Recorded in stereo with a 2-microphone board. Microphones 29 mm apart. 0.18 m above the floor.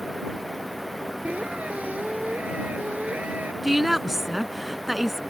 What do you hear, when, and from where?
1.2 s a squeak: 60° right (ahead or behind)
3.6 s a woman speaking: 10° right (ahead or behind)